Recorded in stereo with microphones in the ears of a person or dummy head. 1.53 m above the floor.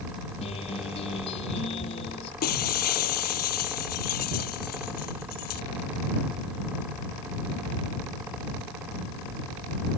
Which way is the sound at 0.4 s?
35° left (ahead or behind).